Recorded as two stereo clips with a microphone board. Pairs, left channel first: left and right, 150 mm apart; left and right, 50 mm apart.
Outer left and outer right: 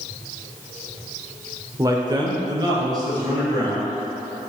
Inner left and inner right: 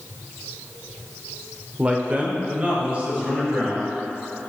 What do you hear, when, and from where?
1.8 s a man speaking: 20° right (ahead or behind), 0.8 m; by 4.0 s 25° right (ahead or behind), 3 m